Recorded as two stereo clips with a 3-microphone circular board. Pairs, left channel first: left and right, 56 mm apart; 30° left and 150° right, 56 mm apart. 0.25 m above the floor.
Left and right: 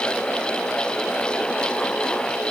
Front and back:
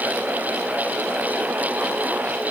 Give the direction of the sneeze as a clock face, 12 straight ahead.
No sneeze in this recording.